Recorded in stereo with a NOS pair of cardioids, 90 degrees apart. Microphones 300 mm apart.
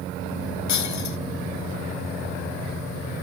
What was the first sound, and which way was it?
Breaking glass, 70° left.